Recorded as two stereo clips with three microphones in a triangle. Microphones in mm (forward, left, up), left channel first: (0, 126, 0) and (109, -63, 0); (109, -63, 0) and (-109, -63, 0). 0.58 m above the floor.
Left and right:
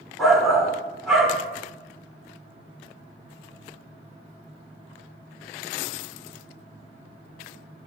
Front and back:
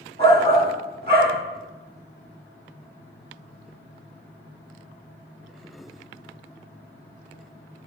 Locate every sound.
0.2 s a shout: 150° right, 1.4 m